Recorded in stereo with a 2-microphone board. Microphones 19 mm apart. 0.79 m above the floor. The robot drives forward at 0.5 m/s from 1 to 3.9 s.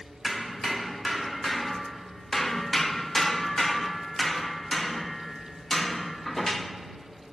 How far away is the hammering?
About 1.1 m.